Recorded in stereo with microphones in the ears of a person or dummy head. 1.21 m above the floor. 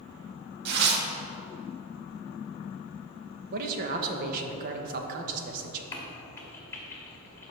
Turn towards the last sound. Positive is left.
turn(degrees=20)  # may be behind; listen again after turning